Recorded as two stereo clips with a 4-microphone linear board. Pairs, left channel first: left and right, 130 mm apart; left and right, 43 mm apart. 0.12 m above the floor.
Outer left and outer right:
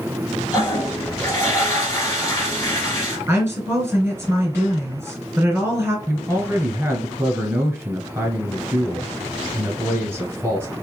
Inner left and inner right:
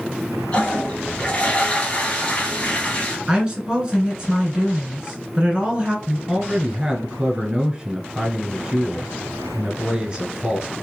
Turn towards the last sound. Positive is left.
turn(degrees=-20)  # may be behind; listen again after turning